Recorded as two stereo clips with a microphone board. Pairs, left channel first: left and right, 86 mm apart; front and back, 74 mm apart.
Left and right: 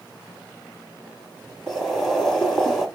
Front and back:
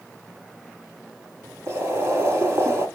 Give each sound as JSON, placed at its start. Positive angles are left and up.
{"t": 1.7, "sound": "boiling", "azimuth_deg": 175, "distance_m": 1.7}